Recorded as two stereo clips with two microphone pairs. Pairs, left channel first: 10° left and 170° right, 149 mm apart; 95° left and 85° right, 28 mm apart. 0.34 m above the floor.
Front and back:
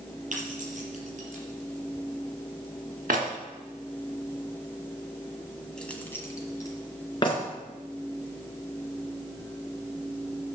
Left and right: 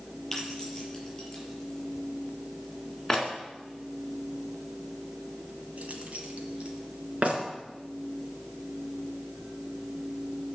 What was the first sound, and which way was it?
Keys jangling, 165° left.